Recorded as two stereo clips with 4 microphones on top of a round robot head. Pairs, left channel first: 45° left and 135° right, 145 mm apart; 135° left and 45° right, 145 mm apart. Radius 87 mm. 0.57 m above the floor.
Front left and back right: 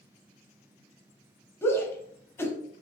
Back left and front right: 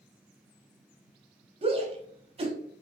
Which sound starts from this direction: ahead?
A shout, at 1.6 s.